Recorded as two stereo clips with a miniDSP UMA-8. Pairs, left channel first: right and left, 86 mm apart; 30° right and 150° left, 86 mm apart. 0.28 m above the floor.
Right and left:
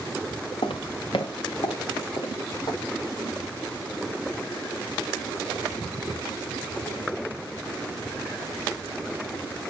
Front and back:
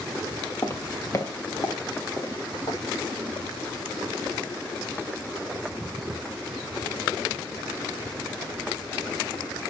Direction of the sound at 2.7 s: 60° right.